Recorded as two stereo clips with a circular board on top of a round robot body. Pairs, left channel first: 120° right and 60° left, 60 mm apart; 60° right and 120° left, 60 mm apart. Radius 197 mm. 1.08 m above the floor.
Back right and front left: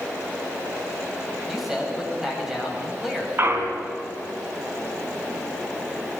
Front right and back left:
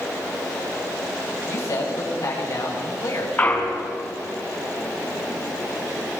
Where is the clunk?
5° left, 2.5 m.